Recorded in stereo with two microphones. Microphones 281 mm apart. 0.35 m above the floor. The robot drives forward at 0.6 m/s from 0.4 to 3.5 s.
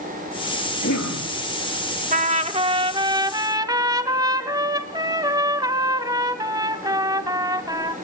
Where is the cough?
75° left (ahead or behind), 8.5 m.